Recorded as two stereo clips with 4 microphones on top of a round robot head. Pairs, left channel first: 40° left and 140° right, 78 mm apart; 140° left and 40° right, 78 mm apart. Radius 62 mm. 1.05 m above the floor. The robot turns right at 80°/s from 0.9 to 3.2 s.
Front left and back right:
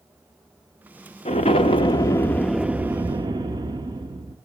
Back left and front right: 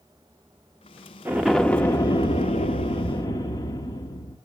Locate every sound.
1.2 s an explosion: 25° left, 1.0 m; by 4.4 s 175° right, 1.0 m